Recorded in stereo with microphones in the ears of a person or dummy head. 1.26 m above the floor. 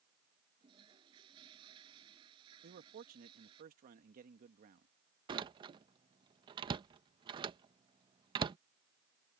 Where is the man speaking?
45° right (ahead or behind).